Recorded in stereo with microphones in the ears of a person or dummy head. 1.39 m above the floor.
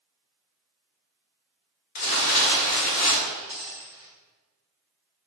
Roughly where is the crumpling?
Left.